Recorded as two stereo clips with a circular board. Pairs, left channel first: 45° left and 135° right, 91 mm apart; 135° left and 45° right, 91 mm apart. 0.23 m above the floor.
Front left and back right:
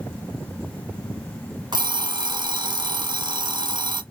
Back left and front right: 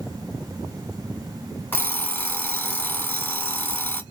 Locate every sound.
1.7 s an alarm clock: 160° right, 0.8 m